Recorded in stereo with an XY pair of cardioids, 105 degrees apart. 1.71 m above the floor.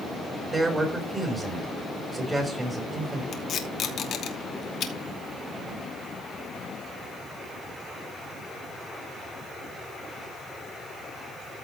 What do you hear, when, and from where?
0.5 s a man speaking: 20° right, 5.5 m
3.3 s tape being pulled: 60° left, 2.5 m